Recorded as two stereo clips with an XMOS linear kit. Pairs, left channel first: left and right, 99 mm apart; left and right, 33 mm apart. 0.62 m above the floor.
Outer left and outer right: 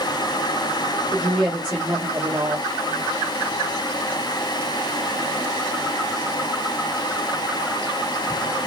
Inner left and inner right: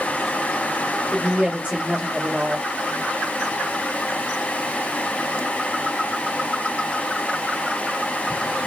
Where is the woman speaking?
40° right (ahead or behind), 1.4 m.